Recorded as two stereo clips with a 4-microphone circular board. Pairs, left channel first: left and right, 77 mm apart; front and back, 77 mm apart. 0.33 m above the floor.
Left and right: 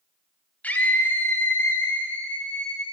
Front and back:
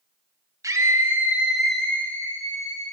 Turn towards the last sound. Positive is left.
turn(degrees=20)